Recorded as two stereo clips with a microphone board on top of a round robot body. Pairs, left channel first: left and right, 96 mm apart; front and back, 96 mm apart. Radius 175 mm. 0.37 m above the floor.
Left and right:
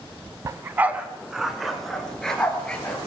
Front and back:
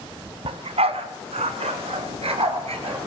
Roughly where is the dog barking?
Behind right.